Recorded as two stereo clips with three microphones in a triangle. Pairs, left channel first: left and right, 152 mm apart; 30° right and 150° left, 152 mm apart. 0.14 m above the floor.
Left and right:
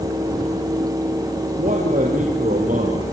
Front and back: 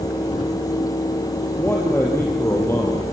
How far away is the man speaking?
About 3.5 m.